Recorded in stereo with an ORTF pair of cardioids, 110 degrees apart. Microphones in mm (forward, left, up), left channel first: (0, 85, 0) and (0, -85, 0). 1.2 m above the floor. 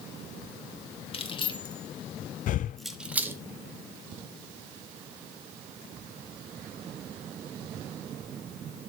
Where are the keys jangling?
30° left, 2.0 m; by 3.4 s 15° right, 1.4 m.